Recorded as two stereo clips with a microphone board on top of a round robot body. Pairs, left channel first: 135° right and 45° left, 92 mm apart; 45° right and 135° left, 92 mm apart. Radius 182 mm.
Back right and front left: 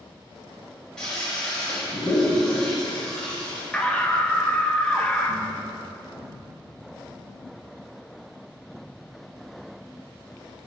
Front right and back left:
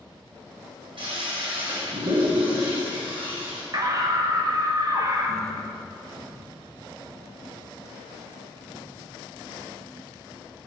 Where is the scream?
155° left, 1.4 m.